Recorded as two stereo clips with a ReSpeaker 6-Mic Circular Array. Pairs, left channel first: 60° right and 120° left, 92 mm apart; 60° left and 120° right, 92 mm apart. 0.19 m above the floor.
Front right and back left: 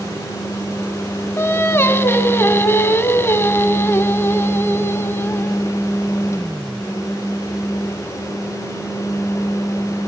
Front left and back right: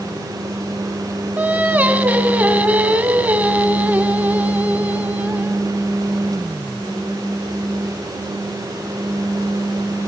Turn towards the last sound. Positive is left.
turn(degrees=-70)